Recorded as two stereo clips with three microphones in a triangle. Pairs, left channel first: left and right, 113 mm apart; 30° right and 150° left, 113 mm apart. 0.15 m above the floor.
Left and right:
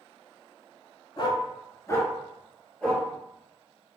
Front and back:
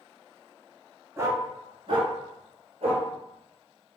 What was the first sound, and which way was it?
A dog barking, 95° left.